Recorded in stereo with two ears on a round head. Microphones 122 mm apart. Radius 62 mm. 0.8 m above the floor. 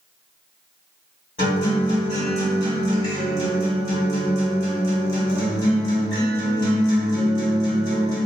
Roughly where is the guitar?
Left.